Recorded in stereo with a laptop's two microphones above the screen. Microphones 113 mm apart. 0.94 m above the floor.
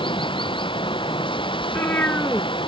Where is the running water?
50° left (ahead or behind).